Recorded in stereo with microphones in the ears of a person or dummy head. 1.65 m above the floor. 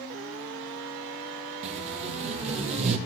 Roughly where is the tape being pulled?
Right.